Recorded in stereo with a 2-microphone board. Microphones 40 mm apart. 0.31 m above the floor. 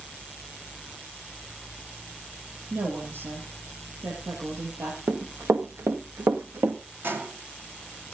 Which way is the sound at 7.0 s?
60° right (ahead or behind).